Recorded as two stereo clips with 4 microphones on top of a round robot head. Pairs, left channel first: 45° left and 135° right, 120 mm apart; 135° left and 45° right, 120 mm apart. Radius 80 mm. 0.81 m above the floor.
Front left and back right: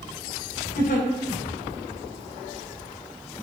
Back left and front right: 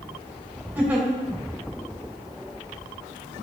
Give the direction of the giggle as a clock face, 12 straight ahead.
11 o'clock.